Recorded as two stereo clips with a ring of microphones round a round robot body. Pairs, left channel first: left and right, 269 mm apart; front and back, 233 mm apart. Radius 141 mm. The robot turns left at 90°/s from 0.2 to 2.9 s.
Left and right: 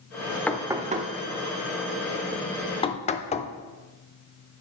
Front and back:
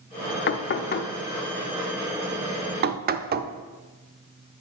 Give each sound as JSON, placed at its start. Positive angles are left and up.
{"t": 0.5, "sound": "knocking", "azimuth_deg": 10, "distance_m": 0.6}